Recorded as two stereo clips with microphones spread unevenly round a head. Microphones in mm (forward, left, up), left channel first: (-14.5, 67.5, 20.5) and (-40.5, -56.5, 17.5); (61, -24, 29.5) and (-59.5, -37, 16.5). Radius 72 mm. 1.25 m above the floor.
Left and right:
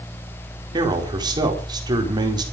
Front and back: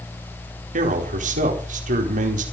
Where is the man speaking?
160° right, 4.5 m.